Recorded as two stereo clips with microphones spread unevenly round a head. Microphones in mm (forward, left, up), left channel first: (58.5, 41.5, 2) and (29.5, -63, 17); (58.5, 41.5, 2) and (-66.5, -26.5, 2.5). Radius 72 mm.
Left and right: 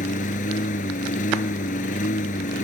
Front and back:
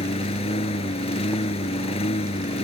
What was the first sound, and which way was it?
A lawn mower, 75° left.